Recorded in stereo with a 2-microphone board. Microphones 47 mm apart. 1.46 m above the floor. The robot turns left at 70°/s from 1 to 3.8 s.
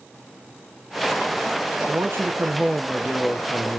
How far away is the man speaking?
About 0.7 m.